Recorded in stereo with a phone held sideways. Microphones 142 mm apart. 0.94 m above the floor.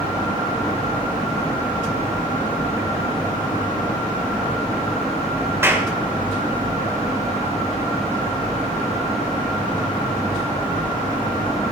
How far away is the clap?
About 2.5 m.